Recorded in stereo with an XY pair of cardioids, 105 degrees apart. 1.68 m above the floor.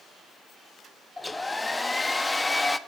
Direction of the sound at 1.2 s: 10° left.